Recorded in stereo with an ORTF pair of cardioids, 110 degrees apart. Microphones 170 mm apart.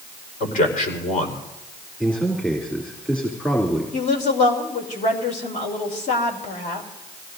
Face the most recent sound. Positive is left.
turn(degrees=50)